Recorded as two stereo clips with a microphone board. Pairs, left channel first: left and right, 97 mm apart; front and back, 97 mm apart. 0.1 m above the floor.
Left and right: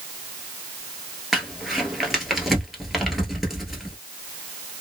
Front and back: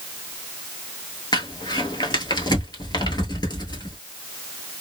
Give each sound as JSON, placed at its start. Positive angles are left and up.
{"t": 1.3, "sound": "crumpling", "azimuth_deg": 0, "distance_m": 1.2}